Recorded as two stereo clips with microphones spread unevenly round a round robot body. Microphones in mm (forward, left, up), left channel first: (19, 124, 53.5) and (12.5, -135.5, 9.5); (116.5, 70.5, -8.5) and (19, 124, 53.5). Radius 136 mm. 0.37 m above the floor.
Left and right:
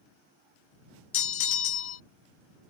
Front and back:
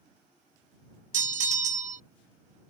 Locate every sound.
1.1 s a bell: 135° left